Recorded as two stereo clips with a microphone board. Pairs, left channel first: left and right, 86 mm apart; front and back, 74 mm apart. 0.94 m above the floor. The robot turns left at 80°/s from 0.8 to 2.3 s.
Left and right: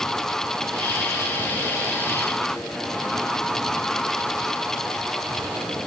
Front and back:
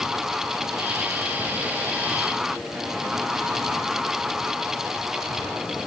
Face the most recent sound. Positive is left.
No sound to turn to.